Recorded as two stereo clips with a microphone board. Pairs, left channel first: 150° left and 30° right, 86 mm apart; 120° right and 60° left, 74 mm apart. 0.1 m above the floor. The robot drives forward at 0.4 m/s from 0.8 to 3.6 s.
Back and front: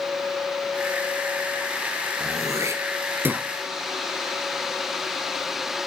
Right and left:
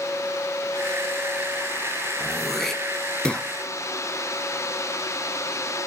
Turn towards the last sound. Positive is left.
turn(degrees=-75)